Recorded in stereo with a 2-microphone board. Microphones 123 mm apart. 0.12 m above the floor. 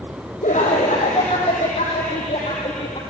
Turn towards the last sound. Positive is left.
turn(degrees=55)  # may be behind; listen again after turning